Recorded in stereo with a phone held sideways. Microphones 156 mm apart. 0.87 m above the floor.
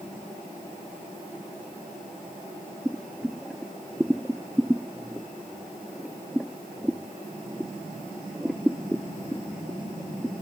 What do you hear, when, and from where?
2.9 s boiling: centre (ahead or behind)